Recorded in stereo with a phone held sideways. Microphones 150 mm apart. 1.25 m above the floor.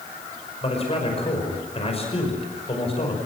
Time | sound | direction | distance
0.6 | a man speaking | 40° left (ahead or behind) | 5.5 m